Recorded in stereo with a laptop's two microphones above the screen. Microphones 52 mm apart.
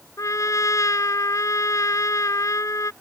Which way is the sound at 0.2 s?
85° left.